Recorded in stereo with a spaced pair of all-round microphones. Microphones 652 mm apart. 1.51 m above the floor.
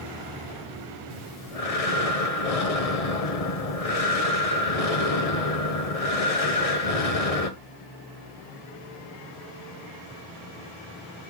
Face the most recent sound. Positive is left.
turn(degrees=65)  # may be behind; listen again after turning